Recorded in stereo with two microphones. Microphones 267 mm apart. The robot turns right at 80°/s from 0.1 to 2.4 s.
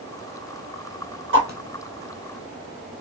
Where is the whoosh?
50° right (ahead or behind), 1.6 m; by 3.0 s 30° left (ahead or behind), 1.6 m.